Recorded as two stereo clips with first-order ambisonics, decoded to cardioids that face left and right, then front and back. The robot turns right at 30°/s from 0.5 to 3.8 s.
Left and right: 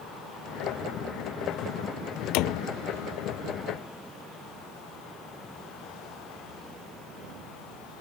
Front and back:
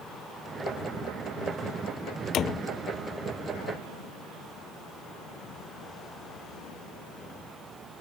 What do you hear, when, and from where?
2.3 s a door slam: 55° left; by 2.7 s 65° left